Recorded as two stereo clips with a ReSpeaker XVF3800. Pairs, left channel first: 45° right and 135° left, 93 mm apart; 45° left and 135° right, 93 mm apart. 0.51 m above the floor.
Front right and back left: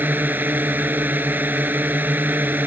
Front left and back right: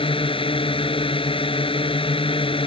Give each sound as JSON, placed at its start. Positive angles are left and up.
{"t": 0.0, "sound": "a drone", "azimuth_deg": 65}